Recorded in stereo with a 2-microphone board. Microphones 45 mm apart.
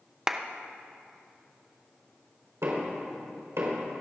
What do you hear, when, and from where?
0.3 s a clap: 15° right (ahead or behind), 0.7 m
2.6 s knocking: 85° right, 4 m